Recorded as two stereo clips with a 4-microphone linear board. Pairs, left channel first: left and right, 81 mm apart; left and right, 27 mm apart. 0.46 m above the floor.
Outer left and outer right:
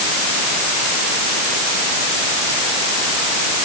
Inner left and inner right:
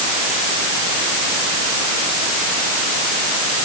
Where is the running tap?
I don't hear a running tap.